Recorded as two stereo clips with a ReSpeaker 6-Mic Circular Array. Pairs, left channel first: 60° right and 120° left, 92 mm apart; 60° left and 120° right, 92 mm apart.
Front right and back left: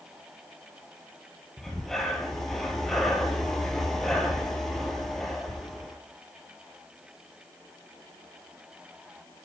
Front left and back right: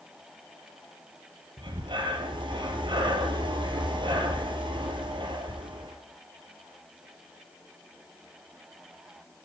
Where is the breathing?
150° right, 1.8 m.